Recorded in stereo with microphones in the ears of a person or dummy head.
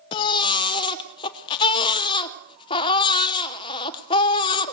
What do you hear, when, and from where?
0.1 s a baby crying: 25° left (ahead or behind), 0.9 m